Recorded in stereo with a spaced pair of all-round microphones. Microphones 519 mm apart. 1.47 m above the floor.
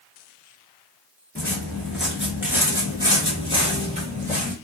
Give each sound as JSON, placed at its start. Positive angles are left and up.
{"t": 1.4, "sound": "footsteps", "side_deg": 5, "distance_m": 1.6}